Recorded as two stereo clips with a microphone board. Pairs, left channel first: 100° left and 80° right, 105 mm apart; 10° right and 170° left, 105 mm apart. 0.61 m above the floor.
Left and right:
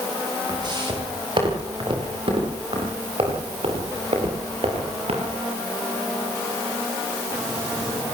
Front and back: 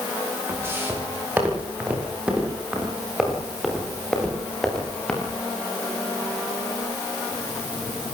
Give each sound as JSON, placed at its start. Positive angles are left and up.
{"t": 0.5, "sound": "footsteps", "azimuth_deg": -125, "distance_m": 9.5}